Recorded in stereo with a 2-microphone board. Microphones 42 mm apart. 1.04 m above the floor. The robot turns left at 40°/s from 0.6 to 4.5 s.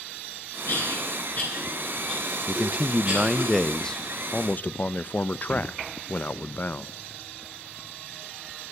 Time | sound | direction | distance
0.7 | a cough | 65° left (ahead or behind) | 9.5 m
2.5 | a man speaking | 140° right | 0.6 m